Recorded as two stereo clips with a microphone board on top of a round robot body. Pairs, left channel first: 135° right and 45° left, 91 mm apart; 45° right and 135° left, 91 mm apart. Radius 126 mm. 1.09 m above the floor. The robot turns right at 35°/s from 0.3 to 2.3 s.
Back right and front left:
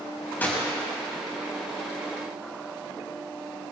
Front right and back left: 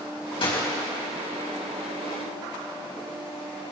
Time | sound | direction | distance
0.4 | a gunshot | 65° right | 4.5 m